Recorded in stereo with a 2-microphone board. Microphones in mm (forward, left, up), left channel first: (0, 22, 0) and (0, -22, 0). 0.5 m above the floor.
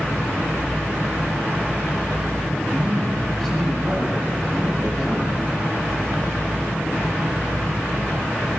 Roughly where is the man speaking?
Centre.